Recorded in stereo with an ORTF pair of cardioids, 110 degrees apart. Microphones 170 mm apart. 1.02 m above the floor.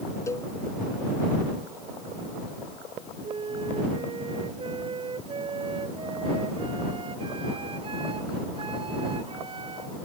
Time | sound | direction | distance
0.3 | a cowbell | 15° left | ?
3.2 | a flute | 30° right | ?